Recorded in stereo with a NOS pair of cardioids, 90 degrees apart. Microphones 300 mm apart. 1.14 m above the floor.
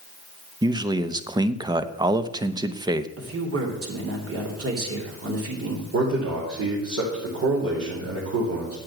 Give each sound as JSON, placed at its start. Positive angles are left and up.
{"t": 0.6, "sound": "a man speaking", "azimuth_deg": -15, "distance_m": 0.9}
{"t": 3.2, "sound": "a man speaking", "azimuth_deg": -50, "distance_m": 3.5}
{"t": 5.9, "sound": "a man speaking", "azimuth_deg": -55, "distance_m": 4.0}